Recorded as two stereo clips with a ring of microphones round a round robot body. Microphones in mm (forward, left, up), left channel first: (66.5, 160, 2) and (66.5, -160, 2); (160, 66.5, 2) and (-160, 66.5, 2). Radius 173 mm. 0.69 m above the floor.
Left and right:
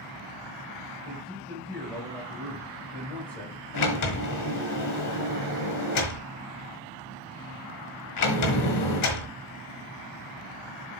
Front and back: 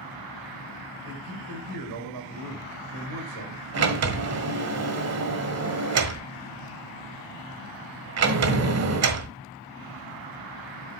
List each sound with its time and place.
1.1 s a man speaking: 175° left, 4 m
3.7 s a sliding door: 135° left, 1.4 m